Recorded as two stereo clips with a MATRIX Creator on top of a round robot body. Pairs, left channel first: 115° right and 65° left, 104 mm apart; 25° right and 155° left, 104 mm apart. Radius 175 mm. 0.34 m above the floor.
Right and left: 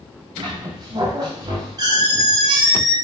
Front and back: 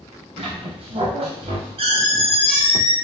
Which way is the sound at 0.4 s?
120° left.